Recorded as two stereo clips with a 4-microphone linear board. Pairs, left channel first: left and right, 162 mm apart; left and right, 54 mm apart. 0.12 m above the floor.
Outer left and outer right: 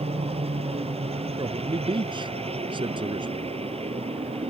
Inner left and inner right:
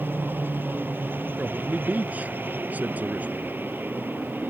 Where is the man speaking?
30° right (ahead or behind).